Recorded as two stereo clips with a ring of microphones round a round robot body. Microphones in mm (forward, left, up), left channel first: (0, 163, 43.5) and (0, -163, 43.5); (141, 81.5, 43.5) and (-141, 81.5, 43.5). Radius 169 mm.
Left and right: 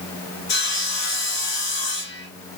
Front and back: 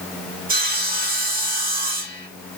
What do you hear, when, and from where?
0.5 s sawing: 135° left, 1.8 m